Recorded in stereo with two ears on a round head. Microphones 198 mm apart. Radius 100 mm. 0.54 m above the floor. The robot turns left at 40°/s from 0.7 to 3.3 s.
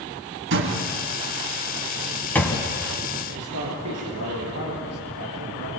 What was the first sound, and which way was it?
A door slam, 60° right (ahead or behind).